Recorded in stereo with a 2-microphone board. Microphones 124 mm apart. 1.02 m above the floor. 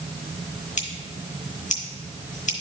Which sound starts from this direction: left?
Scissors, at 0.8 s.